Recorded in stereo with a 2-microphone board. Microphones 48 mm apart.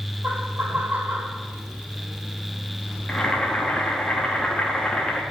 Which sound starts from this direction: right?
Laughter, at 0.2 s.